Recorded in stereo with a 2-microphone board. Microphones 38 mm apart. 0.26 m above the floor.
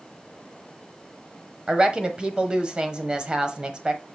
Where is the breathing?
No breathing in this recording.